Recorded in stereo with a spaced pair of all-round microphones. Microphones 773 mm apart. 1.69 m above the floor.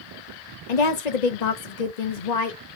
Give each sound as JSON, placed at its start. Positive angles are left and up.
{"t": 0.7, "sound": "a woman speaking", "side_deg": 60, "distance_m": 0.9}